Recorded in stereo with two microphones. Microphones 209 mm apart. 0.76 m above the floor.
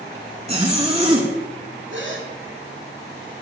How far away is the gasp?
About 2.5 m.